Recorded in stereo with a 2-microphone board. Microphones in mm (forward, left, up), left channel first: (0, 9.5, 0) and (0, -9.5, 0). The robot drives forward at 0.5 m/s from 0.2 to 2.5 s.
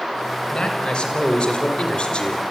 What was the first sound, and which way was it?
A man speaking, 45° left (ahead or behind).